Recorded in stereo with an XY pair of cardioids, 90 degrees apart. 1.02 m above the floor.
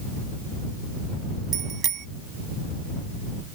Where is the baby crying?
I don't hear a baby crying.